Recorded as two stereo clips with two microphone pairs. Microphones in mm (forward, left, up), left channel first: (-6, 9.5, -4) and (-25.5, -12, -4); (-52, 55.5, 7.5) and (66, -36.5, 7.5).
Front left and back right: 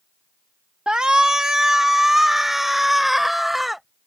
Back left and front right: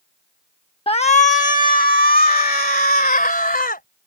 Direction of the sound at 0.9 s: 175° left.